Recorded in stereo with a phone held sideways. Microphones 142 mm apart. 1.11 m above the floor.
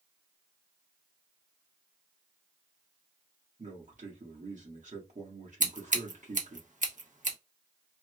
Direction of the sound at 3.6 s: 65° right (ahead or behind).